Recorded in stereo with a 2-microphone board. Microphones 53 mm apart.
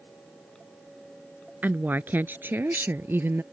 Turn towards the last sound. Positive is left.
turn(degrees=-45)  # may be behind; listen again after turning